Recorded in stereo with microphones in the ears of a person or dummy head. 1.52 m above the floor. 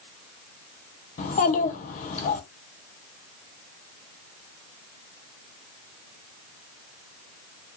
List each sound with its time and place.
1.2 s a child speaking: 40° left (ahead or behind), 1.5 m